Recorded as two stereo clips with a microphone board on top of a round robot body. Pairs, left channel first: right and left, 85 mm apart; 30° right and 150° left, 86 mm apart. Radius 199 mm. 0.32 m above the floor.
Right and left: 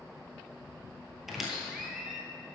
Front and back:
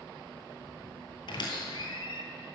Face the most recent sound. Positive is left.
turn(degrees=5)